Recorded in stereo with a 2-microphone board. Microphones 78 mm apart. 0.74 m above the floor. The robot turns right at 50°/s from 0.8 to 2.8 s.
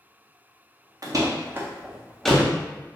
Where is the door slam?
50° right (ahead or behind), 0.6 m; by 2.5 s 15° left (ahead or behind), 0.6 m.